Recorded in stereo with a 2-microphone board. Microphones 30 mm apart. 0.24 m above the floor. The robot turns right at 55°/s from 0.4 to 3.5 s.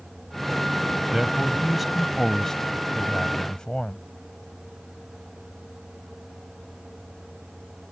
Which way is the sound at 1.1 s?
15° right (ahead or behind).